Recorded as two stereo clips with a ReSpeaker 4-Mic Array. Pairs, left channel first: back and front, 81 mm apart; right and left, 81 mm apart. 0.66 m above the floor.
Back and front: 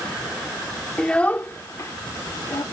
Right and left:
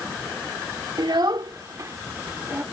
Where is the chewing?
I don't hear chewing.